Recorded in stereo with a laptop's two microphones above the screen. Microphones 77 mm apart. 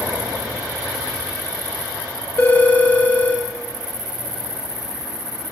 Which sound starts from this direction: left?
A phone ringing, at 2.4 s.